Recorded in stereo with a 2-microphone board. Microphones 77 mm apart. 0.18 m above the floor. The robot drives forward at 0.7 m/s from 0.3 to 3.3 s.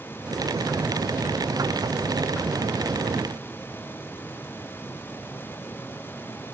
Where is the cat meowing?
No cat meowing in this recording.